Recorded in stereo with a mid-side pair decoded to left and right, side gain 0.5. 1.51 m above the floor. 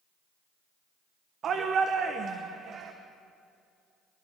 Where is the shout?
50° right, 1.0 m.